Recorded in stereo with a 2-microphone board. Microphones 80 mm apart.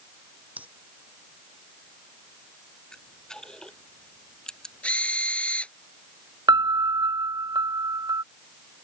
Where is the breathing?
20° right (ahead or behind).